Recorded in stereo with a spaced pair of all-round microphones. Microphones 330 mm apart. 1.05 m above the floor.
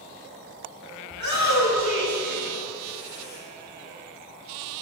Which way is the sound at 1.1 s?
60° left (ahead or behind).